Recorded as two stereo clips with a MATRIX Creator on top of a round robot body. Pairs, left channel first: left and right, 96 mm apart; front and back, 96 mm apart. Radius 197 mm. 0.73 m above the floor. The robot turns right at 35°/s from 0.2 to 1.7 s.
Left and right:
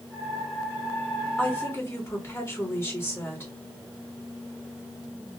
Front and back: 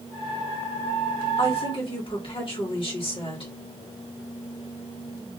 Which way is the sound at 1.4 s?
15° left.